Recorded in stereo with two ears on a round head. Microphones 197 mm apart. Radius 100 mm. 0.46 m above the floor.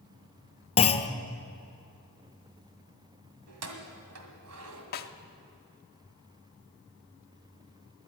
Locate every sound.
0.8 s a clunk: 25° left (ahead or behind), 0.8 m
3.5 s keys jangling: 65° right (ahead or behind), 1.9 m
4.9 s a snare drum: 45° left (ahead or behind), 0.8 m